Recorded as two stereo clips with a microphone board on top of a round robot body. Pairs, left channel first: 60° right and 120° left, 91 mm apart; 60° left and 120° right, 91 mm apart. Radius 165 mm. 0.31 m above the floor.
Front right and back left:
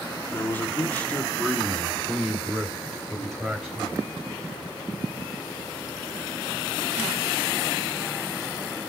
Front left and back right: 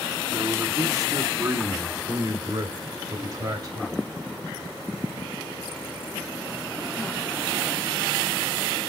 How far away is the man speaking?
About 1.3 m.